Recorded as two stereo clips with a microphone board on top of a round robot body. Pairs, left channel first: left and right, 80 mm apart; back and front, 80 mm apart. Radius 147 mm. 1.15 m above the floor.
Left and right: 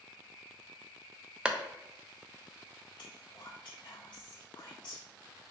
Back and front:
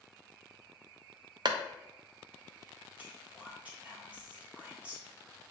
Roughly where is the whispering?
Left.